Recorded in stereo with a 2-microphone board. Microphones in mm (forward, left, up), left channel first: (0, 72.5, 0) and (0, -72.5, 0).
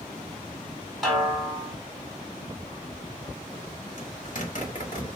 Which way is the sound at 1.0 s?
Centre (ahead or behind).